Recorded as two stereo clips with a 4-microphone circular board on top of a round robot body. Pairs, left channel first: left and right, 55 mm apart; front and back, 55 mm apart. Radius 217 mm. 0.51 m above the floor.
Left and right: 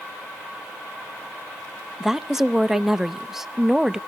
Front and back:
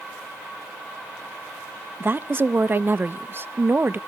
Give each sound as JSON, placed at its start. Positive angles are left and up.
{"t": 2.0, "sound": "a woman speaking", "azimuth_deg": -170, "distance_m": 0.8}